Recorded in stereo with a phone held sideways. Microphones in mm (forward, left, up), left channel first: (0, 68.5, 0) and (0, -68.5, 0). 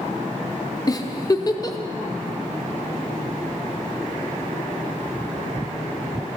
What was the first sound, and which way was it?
A giggle, 25° left (ahead or behind).